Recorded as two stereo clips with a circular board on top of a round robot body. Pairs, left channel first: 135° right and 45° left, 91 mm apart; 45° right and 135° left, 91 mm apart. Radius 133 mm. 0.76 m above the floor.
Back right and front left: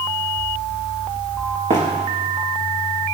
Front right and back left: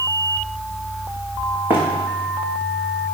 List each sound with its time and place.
1.7 s running footsteps: 70° left, 4 m